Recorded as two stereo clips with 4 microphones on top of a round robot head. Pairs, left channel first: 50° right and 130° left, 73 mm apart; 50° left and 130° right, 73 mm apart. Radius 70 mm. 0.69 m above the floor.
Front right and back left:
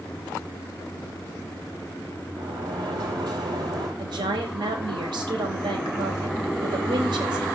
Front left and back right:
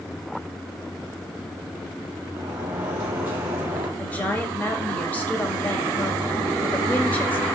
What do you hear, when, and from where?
2.4 s a sliding door: 165° left, 5 m
4.0 s a woman speaking: 120° left, 4 m